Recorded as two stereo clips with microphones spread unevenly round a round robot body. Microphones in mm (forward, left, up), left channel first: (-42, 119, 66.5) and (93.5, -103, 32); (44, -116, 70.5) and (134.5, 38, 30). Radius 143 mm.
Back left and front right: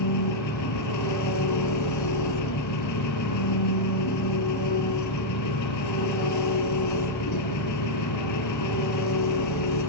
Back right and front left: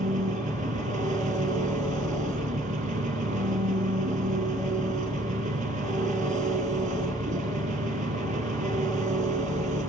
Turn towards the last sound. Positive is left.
turn(degrees=110)